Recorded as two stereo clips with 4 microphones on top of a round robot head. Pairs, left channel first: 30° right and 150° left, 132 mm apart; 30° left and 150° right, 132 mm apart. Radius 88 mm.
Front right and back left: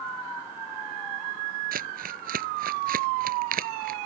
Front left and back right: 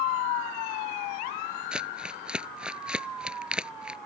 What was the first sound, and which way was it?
Crumpling, 130° left.